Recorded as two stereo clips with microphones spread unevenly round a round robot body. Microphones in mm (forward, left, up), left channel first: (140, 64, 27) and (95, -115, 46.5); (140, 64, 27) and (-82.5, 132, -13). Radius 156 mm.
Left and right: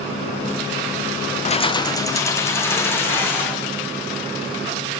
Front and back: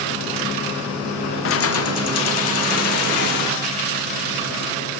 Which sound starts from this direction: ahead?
Keys jangling, at 1.4 s.